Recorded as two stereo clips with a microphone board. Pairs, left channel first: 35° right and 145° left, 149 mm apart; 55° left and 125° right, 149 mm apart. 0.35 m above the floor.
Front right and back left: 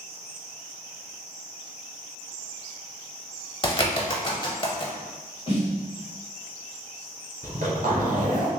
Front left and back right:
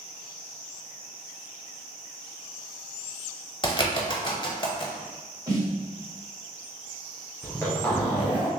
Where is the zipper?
130° left, 1.4 m.